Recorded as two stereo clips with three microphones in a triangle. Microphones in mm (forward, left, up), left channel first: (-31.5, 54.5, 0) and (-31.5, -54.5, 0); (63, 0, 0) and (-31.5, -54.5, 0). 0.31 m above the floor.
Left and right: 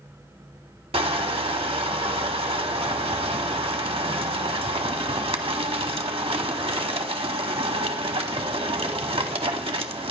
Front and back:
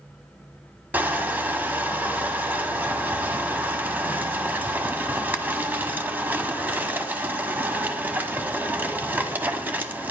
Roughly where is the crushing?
Right.